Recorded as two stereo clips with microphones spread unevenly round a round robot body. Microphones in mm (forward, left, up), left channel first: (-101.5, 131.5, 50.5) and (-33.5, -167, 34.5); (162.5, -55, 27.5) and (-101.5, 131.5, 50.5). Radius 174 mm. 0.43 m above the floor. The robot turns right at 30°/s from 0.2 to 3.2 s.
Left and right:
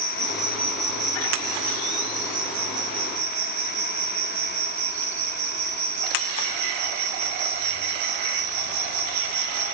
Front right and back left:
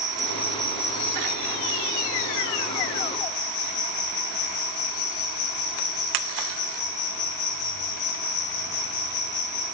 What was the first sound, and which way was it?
An insect, 125° right.